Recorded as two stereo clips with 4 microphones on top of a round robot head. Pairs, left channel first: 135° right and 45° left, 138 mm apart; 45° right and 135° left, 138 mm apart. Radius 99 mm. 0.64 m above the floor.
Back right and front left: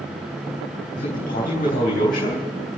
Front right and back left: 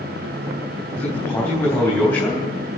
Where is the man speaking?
115° right, 3.5 m.